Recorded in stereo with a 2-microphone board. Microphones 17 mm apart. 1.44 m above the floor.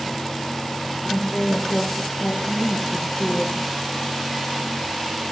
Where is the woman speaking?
80° left, 1.5 m; by 3.7 s 45° left (ahead or behind), 1.7 m.